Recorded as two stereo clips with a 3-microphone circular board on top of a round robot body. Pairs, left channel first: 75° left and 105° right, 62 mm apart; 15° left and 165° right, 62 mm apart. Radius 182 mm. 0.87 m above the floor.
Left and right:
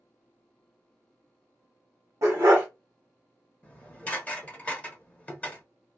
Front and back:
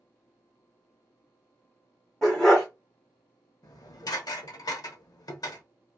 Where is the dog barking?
65° right, 0.6 m.